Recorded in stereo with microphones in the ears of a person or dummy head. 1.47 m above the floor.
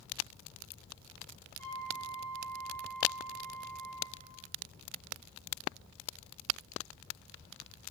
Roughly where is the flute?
Centre.